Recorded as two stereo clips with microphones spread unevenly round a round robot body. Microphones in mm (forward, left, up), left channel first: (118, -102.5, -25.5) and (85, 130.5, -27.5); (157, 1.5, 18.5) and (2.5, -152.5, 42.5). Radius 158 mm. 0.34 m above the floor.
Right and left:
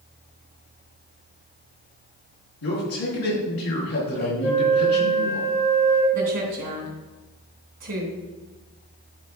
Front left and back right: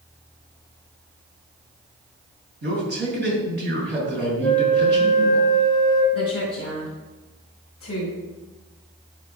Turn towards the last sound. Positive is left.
turn(degrees=110)